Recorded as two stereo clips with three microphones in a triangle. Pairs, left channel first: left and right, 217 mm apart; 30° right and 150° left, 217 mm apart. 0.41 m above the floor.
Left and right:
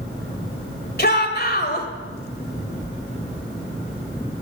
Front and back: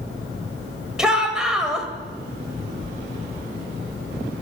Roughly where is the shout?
Ahead left.